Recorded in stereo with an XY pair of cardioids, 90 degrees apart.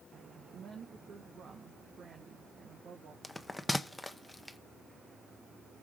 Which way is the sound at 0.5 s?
65° right.